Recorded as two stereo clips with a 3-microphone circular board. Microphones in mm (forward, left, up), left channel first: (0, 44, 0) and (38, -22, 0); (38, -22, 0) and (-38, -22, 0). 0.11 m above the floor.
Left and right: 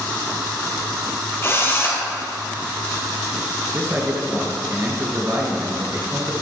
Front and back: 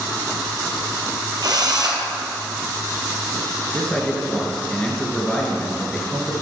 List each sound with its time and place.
1.4 s a drill: 170° left, 1.7 m
3.7 s a man speaking: 60° right, 1.8 m